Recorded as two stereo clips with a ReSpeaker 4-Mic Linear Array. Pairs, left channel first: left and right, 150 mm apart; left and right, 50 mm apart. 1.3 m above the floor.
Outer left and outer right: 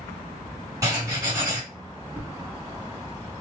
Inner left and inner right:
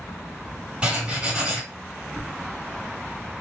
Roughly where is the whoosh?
Centre.